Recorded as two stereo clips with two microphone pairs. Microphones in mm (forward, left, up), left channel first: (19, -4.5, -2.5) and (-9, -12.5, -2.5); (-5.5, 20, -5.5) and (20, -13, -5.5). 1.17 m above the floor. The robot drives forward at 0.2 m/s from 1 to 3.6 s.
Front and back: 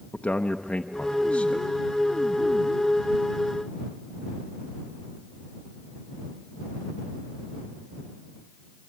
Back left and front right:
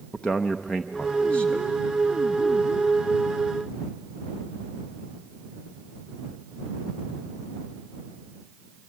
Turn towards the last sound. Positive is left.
turn(degrees=100)